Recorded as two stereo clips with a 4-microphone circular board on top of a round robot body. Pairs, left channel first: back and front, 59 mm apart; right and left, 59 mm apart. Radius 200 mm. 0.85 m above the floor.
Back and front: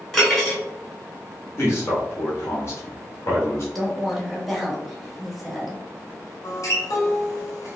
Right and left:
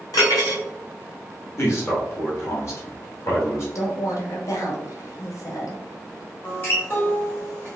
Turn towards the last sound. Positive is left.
turn(degrees=-150)